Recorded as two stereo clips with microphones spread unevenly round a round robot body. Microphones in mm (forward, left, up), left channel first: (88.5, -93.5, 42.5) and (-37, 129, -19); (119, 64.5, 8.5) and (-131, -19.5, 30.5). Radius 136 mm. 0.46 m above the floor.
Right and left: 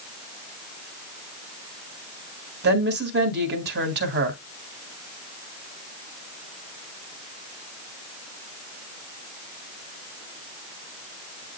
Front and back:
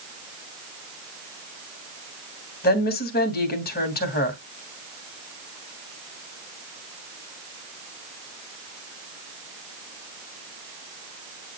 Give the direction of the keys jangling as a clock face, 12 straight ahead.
No keys jangling in this recording.